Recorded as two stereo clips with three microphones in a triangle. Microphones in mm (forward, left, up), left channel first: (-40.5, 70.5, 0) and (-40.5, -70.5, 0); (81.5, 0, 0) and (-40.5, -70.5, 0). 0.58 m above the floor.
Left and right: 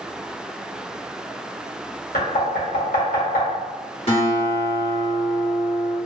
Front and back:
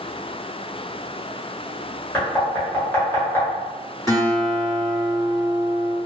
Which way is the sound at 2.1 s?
105° left.